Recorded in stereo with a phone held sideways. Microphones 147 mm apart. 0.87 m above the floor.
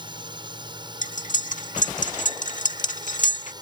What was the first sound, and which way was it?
A drone, 30° right (ahead or behind).